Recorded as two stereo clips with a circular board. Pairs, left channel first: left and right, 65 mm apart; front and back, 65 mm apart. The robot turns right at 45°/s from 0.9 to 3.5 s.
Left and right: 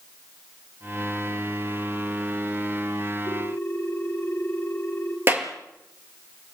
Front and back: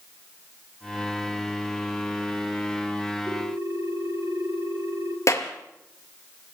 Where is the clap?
35° right, 3.5 m.